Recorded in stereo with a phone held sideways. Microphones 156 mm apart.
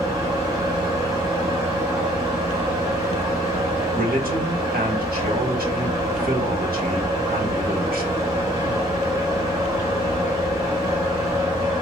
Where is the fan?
20° right (ahead or behind), 1.3 m.